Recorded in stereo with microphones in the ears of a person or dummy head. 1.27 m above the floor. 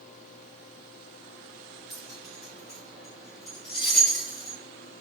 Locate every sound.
1.9 s keys jangling: 5° right (ahead or behind), 1.7 m